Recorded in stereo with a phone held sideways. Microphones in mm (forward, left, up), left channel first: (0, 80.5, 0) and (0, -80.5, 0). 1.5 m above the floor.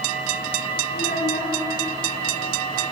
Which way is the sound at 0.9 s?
65° left (ahead or behind).